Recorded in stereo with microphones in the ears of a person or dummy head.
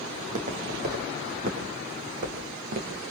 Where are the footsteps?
40° right (ahead or behind), 3.5 m; by 3.0 s 50° right (ahead or behind), 4.5 m.